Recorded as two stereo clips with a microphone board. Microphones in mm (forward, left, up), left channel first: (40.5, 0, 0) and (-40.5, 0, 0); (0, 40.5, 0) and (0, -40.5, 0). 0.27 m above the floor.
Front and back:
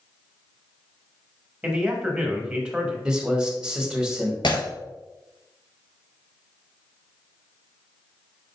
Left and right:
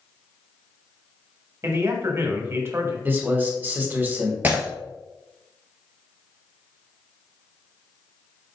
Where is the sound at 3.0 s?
110° right, 1.1 m.